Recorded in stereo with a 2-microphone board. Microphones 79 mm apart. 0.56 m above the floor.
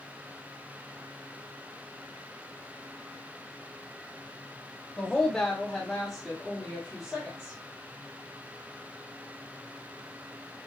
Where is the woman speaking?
5° left (ahead or behind), 0.8 m; by 7.6 s centre (ahead or behind), 1.6 m.